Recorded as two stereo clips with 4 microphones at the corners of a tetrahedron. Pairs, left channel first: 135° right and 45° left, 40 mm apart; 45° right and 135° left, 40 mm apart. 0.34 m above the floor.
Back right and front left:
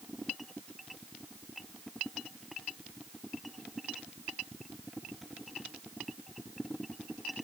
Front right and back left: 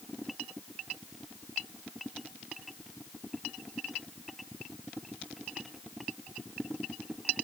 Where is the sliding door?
No sliding door in this recording.